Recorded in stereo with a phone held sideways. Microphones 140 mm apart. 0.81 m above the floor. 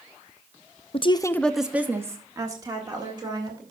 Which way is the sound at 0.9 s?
45° left (ahead or behind).